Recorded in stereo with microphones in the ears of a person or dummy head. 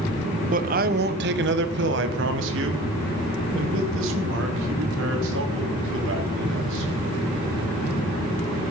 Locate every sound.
0.5 s a man speaking: 40° right (ahead or behind), 0.8 m; by 6.9 s 75° right (ahead or behind), 4 m